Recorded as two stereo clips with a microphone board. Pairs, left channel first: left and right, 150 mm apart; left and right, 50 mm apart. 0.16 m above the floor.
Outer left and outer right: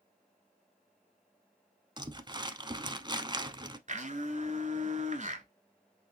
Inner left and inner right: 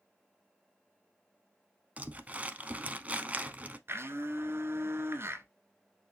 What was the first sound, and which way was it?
Crumpling, 30° right (ahead or behind).